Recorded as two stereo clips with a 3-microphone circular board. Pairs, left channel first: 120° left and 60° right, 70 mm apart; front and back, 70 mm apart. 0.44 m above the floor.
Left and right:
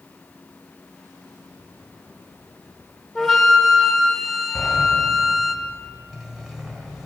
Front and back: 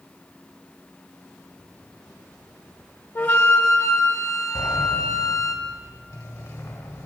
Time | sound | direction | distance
3.1 | a flute | 30° left | 1.3 m
4.5 | a sliding door | 25° left | 1.7 m